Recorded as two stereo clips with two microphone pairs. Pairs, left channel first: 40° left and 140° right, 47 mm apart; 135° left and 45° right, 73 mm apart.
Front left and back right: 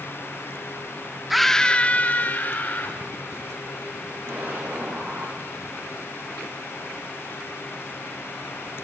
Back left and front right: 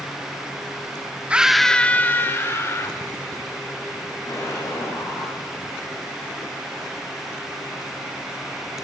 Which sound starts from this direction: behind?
An explosion, at 4.3 s.